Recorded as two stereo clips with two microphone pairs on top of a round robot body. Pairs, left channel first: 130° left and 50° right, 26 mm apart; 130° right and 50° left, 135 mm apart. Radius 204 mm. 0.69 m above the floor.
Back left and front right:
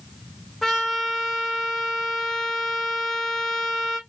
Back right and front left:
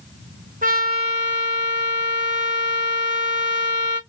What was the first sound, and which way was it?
A trumpet, 45° left.